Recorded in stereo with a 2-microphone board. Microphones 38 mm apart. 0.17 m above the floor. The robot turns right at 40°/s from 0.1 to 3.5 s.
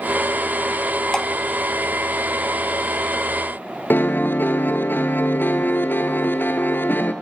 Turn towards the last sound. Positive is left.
turn(degrees=65)  # may be behind; listen again after turning